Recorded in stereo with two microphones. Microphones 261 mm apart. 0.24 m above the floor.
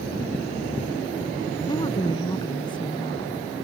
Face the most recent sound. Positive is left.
turn(degrees=20)  # may be behind; listen again after turning